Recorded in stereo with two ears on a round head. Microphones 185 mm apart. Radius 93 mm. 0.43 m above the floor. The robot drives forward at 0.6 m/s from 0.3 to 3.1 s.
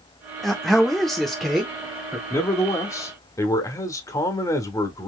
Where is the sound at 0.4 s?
Centre (ahead or behind), 0.9 m.